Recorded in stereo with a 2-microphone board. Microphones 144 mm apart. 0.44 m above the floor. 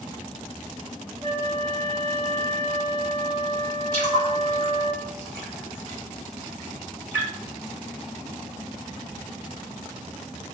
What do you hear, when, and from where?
1.2 s a flute: 40° right (ahead or behind), 1.2 m
3.9 s a splash: 10° left (ahead or behind), 1.8 m